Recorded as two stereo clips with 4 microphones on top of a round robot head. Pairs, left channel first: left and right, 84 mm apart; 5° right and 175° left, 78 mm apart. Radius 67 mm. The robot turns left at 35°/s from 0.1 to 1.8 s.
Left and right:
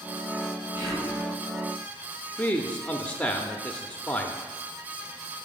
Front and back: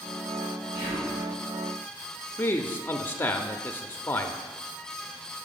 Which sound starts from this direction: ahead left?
A man speaking, at 2.4 s.